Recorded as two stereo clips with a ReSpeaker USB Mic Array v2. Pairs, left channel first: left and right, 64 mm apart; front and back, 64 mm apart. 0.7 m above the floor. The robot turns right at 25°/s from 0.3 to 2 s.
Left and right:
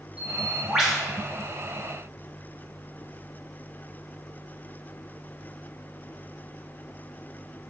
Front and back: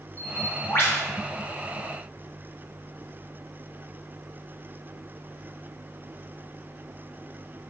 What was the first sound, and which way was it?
A bird, 20° right.